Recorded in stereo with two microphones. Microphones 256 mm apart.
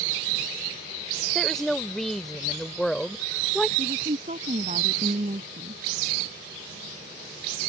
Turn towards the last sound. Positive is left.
turn(degrees=-30)  # may be behind; listen again after turning